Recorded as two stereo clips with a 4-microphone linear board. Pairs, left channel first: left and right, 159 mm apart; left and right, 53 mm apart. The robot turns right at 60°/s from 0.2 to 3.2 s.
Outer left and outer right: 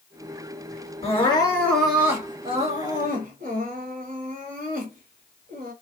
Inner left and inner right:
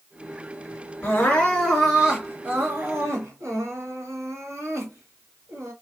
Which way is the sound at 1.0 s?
130° left.